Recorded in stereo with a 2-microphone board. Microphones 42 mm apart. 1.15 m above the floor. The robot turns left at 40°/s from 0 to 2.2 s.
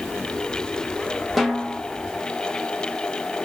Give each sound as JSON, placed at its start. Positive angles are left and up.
{"t": 1.4, "sound": "a snare drum", "side_deg": 0, "distance_m": 0.6}